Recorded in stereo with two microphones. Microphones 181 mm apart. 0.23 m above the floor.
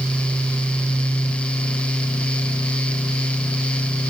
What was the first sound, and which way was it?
Only background noise.